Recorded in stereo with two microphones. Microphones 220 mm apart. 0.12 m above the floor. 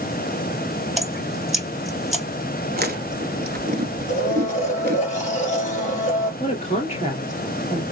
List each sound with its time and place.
1.0 s dripping: centre (ahead or behind), 1.0 m
2.7 s chewing: 45° right (ahead or behind), 0.9 m
4.1 s a blender: 35° left (ahead or behind), 2.5 m
6.4 s a woman speaking: 30° left (ahead or behind), 2.0 m